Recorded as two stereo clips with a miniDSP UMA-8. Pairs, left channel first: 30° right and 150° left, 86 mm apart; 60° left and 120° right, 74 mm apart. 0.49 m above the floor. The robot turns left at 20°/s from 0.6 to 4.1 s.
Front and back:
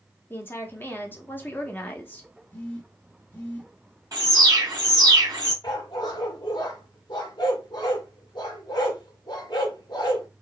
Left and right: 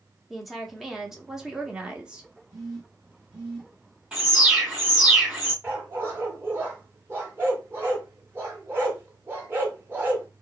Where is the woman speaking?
35° right, 0.8 m; by 2.3 s 65° right, 0.8 m.